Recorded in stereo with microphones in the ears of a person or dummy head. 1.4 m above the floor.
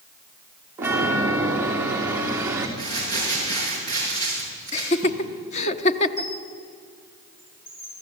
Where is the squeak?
40° left (ahead or behind), 5 m.